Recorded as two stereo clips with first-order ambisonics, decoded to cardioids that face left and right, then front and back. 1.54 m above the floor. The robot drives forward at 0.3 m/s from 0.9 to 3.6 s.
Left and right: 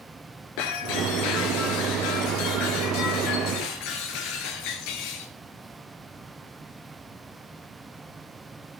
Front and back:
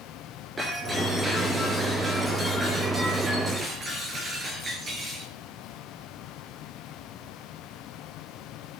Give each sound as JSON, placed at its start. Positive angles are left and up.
{"t": 0.6, "sound": "breaking glass", "azimuth_deg": 100, "distance_m": 5.0}